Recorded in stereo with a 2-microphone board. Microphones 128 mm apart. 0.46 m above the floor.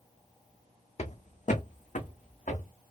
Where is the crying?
No crying in this recording.